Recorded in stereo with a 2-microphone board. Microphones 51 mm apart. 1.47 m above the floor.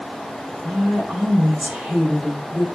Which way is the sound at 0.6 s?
15° right (ahead or behind).